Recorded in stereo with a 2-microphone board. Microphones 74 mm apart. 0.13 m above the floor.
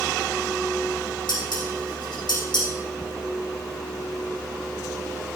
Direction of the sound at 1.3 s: 80° left.